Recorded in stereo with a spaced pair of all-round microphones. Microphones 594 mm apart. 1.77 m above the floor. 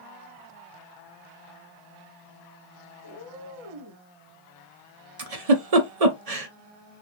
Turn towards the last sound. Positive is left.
turn(degrees=-80)